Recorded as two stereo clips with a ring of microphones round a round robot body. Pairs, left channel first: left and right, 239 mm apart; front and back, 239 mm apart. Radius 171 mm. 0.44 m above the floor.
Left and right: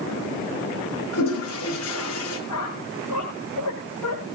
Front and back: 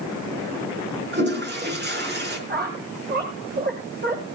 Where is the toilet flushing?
135° left, 5.5 m.